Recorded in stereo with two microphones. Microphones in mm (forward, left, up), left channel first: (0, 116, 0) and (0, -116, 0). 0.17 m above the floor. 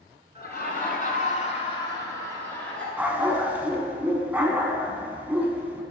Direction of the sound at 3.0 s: 10° right (ahead or behind).